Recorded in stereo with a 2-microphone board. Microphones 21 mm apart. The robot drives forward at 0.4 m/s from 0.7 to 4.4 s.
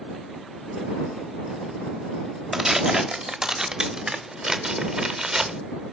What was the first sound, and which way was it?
Tearing paper, 25° right (ahead or behind).